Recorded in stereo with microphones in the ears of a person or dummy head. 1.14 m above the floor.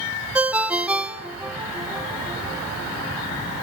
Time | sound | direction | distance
0.3 | a ringtone | 5° right (ahead or behind) | 1.2 m